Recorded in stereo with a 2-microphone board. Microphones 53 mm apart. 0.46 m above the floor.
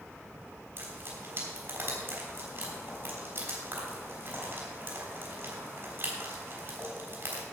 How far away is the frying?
About 3.5 m.